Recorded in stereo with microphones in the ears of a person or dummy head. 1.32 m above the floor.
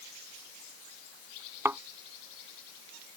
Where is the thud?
15° right (ahead or behind).